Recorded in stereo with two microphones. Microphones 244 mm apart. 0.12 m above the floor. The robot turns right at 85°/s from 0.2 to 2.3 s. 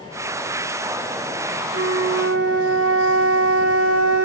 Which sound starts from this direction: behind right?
A flute, at 1.7 s.